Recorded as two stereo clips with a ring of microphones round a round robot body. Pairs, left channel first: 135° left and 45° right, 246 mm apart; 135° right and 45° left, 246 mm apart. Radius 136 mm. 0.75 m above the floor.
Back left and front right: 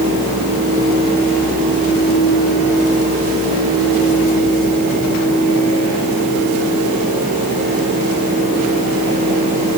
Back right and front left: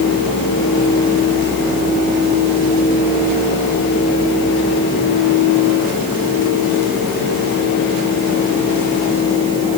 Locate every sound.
Only background noise.